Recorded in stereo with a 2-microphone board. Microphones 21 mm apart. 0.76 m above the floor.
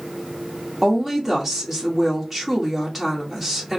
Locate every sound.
0.8 s a woman speaking: centre (ahead or behind), 1.6 m